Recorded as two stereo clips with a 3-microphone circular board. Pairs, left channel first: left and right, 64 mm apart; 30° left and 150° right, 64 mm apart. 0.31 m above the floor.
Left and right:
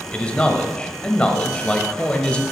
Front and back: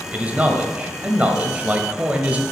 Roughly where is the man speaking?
Behind left.